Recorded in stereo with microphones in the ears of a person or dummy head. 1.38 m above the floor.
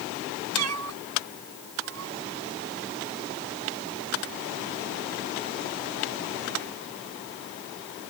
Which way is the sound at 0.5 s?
85° right.